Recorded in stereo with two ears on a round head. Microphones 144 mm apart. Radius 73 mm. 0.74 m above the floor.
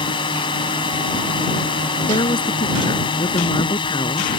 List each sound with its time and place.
0.0 s a drone: 30° left (ahead or behind)
2.1 s a woman speaking: 30° left (ahead or behind)